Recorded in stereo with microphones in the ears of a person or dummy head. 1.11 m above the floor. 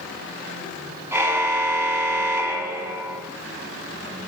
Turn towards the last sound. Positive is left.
turn(degrees=-10)  # may be behind; listen again after turning